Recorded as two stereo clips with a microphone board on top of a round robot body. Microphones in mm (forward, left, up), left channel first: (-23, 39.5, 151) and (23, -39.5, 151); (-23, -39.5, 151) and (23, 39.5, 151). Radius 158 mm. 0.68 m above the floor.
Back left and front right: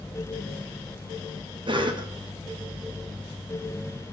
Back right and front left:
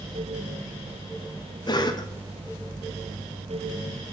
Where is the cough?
85° right, 1.9 m.